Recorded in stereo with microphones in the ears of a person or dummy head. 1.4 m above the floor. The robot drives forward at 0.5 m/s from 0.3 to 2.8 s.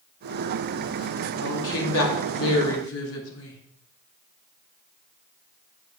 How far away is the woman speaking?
About 2.5 m.